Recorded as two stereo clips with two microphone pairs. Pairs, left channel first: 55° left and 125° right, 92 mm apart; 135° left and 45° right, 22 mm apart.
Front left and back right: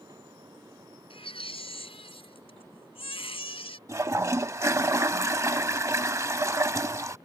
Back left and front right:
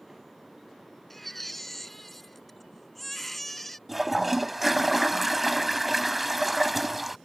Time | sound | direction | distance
1.1 | a baby crying | 55° left | ?
3.9 | a toilet flushing | 130° right | ?